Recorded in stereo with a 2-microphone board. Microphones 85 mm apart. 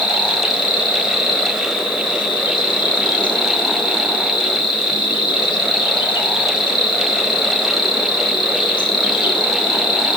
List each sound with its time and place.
0.0 s an insect: 65° left (ahead or behind), 1.8 m